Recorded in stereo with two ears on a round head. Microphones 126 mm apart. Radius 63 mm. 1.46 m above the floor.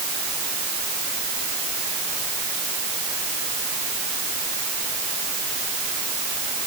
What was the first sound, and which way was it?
Only background noise.